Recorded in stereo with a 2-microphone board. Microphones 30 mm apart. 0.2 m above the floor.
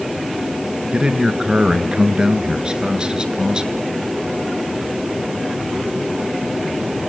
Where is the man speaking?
30° right (ahead or behind), 2.5 m.